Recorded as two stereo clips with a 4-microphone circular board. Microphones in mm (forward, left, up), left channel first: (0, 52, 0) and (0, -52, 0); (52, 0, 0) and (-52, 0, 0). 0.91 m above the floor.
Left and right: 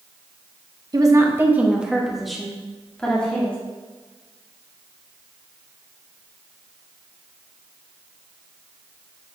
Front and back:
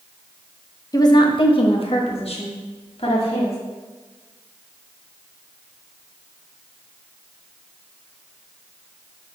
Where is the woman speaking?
50° right, 0.9 m; by 3.6 s 15° left, 2.5 m.